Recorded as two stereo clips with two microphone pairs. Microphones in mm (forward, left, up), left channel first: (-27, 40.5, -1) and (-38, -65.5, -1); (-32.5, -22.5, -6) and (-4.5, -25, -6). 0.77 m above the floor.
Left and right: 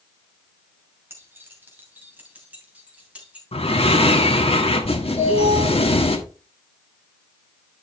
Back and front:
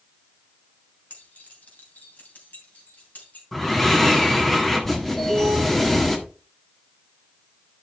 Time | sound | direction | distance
1.1 | keys jangling | 165° right | 2.5 m
3.5 | breathing | 95° left | 1.5 m
5.2 | an alarm | 100° left | 6 m